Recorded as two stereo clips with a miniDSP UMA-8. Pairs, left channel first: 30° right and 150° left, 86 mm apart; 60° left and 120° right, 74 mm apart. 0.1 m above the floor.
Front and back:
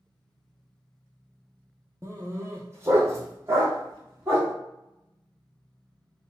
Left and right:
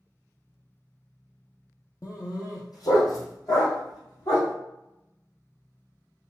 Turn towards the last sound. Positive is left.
turn(degrees=90)